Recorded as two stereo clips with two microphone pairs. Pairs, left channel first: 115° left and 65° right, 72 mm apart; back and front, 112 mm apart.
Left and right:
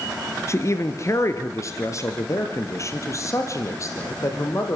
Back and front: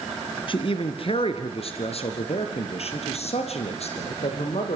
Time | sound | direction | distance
0.5 | a man speaking | 155° left | 2.5 m